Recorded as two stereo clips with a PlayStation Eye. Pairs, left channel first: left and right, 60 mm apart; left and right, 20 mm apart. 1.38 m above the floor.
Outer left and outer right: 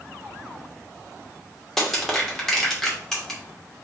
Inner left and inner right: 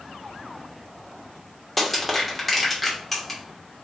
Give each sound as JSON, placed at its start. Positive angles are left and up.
{"t": 1.8, "sound": "crushing", "side_deg": 5, "distance_m": 1.1}